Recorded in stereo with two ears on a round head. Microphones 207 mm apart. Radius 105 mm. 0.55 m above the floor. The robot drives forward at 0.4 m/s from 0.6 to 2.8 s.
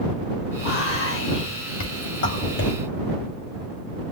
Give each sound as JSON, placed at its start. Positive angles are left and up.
{"t": 0.6, "sound": "whispering", "side_deg": 65, "distance_m": 2.5}